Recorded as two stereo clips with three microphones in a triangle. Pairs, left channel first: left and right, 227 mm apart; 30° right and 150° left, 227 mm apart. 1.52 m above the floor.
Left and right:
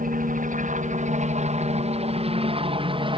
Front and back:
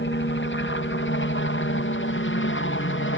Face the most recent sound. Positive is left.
turn(degrees=-25)